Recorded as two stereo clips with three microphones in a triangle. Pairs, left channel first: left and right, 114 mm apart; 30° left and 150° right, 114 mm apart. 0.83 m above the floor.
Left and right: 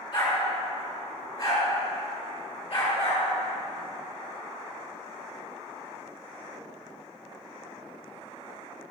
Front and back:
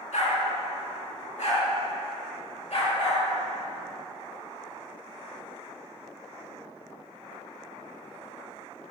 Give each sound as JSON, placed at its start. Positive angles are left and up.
{"t": 0.1, "sound": "a dog barking", "azimuth_deg": 45, "distance_m": 2.5}